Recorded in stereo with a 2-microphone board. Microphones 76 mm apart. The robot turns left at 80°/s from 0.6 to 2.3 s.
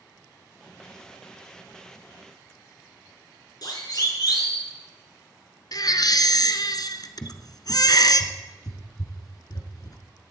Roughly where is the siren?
Left.